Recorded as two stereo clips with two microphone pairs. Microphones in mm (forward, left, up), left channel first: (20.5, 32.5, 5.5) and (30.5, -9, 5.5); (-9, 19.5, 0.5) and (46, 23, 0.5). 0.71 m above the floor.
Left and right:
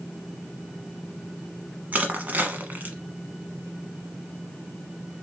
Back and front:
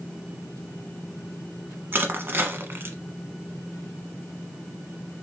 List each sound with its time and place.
1.9 s crushing: 35° right, 1.0 m